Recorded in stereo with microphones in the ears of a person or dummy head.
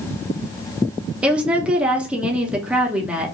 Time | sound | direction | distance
1.2 | a woman speaking | 10° right (ahead or behind) | 0.6 m